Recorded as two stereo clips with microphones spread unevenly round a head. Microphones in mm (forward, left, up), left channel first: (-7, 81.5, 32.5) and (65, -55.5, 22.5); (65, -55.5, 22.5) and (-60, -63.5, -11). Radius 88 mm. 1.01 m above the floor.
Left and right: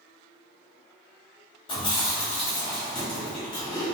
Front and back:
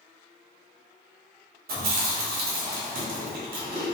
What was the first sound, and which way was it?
Chewing, straight behind.